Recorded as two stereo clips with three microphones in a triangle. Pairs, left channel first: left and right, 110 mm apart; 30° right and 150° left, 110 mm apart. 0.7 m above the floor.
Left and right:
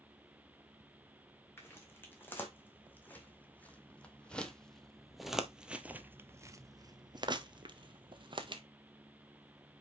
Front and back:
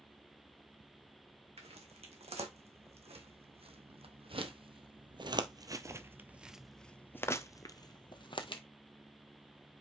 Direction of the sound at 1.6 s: 160° left.